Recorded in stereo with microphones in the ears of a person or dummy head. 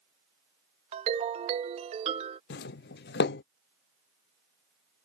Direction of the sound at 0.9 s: 30° right (ahead or behind).